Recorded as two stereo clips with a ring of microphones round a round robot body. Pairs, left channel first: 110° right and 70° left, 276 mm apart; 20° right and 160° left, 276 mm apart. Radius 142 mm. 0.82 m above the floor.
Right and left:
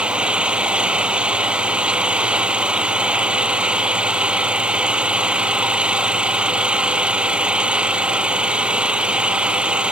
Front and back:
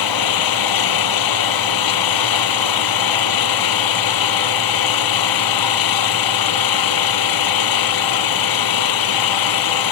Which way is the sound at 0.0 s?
20° right.